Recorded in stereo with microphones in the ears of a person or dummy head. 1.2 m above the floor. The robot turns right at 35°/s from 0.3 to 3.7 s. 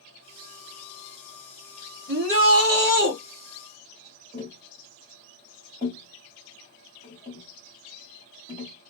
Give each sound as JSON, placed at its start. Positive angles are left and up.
{"t": 2.1, "sound": "a shout", "azimuth_deg": -95, "distance_m": 1.2}
{"t": 4.3, "sound": "tapping", "side_deg": -25, "distance_m": 1.9}